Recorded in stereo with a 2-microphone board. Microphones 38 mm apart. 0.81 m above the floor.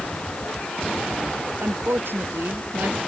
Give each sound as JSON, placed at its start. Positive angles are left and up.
{"t": 1.6, "sound": "a woman speaking", "side_deg": -75}